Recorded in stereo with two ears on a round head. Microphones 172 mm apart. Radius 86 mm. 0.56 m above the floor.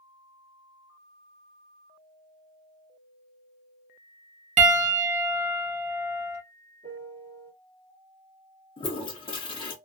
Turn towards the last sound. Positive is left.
turn(degrees=30)  # may be behind; listen again after turning